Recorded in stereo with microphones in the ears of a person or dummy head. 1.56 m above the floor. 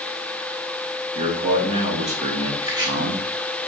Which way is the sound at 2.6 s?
25° right (ahead or behind).